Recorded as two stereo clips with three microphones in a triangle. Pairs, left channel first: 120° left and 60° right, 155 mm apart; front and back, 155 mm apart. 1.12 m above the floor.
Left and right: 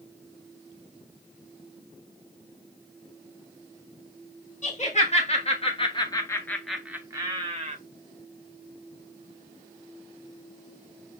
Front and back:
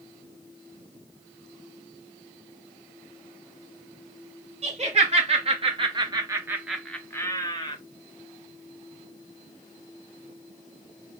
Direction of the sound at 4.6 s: 145° left.